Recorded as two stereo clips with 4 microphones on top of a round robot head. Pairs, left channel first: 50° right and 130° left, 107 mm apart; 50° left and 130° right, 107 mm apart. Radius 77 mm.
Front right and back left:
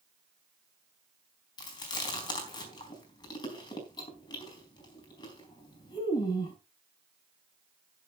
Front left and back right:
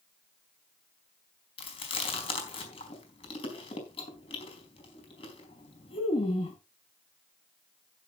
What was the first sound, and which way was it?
Chewing, 5° left.